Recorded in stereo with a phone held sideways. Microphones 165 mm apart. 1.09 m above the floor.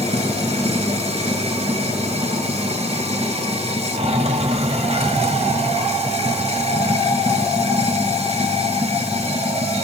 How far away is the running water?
About 1.6 m.